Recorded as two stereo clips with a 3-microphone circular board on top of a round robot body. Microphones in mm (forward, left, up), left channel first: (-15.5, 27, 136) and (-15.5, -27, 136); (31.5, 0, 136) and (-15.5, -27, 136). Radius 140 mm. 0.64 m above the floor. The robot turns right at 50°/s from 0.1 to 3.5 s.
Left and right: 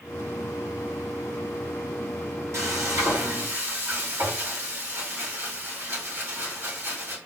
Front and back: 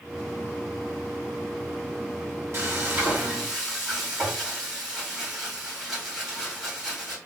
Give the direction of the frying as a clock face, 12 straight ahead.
4 o'clock.